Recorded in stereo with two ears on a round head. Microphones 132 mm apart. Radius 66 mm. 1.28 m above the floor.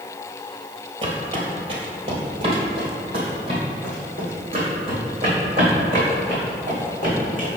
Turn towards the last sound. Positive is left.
turn(degrees=-35)  # may be behind; listen again after turning